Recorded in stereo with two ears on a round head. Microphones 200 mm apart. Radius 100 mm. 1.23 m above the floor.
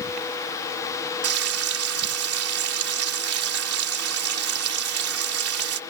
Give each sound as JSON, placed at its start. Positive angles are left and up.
{"t": 1.2, "sound": "frying", "side_deg": -80}